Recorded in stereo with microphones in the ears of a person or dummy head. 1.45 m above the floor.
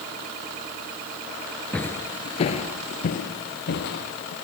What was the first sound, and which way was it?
Footsteps, 5° left (ahead or behind).